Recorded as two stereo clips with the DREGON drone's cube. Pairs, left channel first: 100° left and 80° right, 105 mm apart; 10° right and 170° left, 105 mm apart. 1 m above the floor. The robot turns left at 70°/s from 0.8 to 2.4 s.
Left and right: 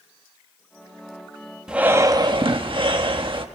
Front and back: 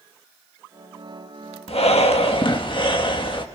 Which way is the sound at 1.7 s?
5° left.